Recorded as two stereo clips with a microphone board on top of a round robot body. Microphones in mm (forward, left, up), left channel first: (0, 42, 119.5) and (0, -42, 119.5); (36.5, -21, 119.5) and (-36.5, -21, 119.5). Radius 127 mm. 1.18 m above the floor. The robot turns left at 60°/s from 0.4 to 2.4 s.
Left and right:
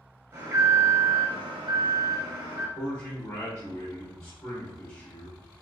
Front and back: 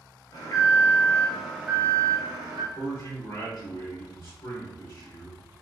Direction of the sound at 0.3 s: 30° right.